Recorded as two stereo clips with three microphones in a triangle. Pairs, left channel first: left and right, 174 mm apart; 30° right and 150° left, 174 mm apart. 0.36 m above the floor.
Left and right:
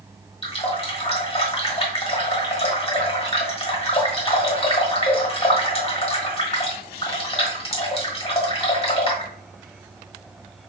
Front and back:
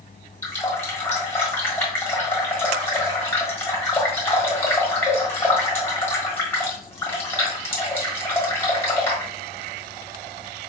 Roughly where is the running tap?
Ahead left.